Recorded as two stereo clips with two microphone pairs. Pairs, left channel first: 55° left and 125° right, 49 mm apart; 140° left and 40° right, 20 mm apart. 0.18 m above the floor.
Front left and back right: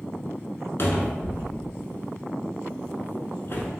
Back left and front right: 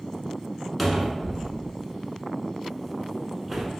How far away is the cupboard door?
About 0.7 m.